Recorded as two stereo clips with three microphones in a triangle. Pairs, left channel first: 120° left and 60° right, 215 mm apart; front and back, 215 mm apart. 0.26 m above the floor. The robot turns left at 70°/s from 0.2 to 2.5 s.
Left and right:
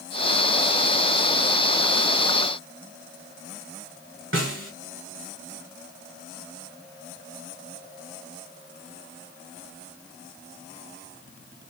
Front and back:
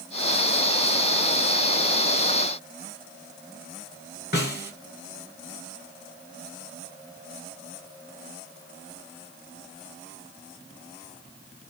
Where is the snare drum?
40° right, 0.9 m.